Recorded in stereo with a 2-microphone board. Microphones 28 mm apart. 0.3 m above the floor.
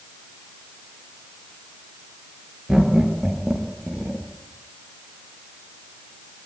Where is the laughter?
25° right (ahead or behind), 5.5 m.